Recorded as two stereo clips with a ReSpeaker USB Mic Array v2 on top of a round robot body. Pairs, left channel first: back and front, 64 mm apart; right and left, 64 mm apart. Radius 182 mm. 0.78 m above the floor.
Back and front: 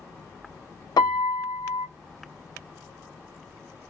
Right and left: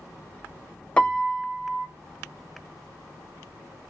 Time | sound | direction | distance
1.0 | a piano | 165° right | 0.8 m